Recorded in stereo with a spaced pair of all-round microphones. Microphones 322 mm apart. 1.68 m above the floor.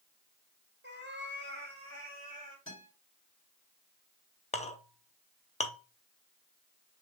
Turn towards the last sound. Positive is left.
turn(degrees=20)  # may be behind; listen again after turning